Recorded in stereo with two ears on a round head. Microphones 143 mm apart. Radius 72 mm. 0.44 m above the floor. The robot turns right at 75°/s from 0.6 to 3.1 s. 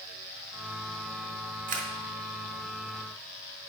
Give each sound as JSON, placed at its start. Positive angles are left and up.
{"t": 1.7, "sound": "a camera shutter", "side_deg": -50, "distance_m": 1.2}